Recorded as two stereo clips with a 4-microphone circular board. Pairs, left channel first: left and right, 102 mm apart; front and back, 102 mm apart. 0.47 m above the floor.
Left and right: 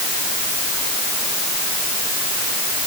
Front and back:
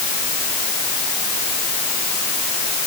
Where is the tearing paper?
I don't hear tearing paper.